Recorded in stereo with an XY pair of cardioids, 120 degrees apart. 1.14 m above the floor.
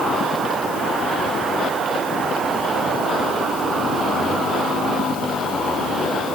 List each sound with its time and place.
Only background noise.